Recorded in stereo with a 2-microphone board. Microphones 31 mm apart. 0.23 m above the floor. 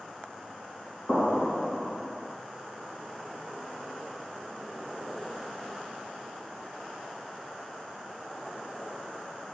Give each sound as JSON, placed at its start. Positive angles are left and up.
{"t": 1.1, "sound": "an explosion", "side_deg": 35, "distance_m": 1.7}